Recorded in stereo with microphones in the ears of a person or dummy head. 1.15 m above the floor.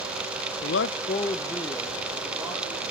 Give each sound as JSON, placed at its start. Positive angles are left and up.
{"t": 0.6, "sound": "a man speaking", "side_deg": 65, "distance_m": 0.6}